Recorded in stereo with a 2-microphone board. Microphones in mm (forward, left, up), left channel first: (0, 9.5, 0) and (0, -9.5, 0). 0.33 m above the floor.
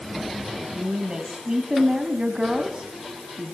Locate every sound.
0.7 s a woman speaking: 40° right (ahead or behind), 3 m